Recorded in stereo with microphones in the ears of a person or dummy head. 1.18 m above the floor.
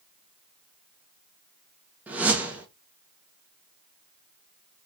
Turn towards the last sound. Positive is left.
turn(degrees=-5)  # may be behind; listen again after turning